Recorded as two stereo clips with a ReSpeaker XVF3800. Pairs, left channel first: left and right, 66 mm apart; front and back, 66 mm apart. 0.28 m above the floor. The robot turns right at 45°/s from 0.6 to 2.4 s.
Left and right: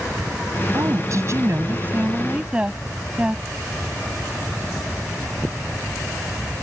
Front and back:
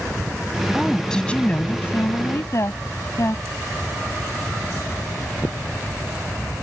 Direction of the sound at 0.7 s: 95° right.